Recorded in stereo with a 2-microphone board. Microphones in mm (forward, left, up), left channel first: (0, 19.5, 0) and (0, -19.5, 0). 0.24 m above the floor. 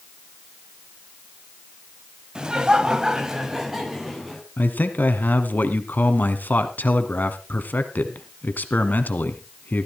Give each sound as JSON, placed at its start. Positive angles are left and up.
{"t": 2.4, "sound": "laughter", "side_deg": -20, "distance_m": 1.1}
{"t": 4.6, "sound": "a man speaking", "side_deg": 55, "distance_m": 1.7}